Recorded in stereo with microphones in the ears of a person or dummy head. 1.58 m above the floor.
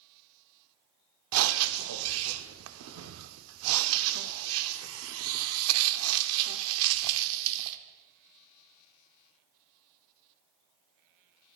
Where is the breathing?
80° right, 0.6 m.